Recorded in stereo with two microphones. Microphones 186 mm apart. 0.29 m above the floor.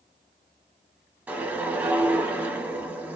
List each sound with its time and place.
1.3 s a whoosh: 10° right (ahead or behind), 0.6 m